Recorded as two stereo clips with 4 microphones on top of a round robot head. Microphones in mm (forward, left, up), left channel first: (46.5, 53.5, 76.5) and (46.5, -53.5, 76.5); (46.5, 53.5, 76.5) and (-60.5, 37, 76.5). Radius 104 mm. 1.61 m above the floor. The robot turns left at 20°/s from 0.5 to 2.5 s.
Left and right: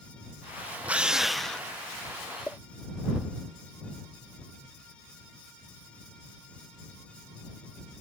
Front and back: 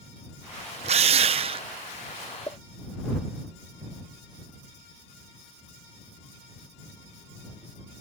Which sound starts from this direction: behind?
A drill, at 0.8 s.